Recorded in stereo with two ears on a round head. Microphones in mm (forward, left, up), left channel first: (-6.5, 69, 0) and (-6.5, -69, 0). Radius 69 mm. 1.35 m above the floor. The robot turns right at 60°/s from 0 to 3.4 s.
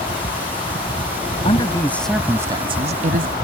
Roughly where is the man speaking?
Behind left.